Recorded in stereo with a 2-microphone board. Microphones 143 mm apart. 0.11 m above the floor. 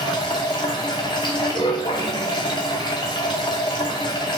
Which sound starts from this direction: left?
Running water, at 0.0 s.